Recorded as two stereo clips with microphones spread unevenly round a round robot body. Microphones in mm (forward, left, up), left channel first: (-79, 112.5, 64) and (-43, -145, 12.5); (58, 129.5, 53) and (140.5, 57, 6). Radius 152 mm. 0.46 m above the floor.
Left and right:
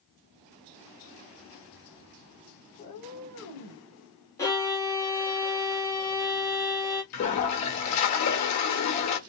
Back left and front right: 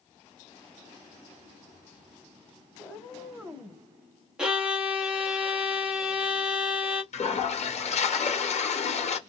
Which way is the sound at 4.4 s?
10° left.